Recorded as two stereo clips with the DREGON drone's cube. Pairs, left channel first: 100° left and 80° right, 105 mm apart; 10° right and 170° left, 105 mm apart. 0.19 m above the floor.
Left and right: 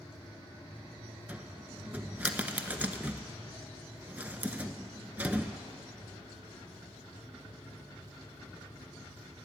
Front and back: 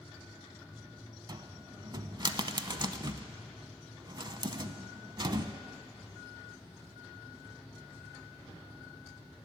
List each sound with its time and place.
1.3 s a cupboard door: 150° right, 0.7 m